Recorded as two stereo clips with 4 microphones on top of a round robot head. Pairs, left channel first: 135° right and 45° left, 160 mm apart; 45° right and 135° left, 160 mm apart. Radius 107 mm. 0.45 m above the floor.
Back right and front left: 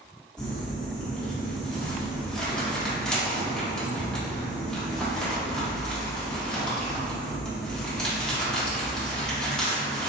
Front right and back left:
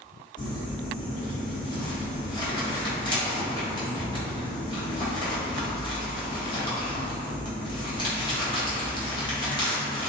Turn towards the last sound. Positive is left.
turn(degrees=-50)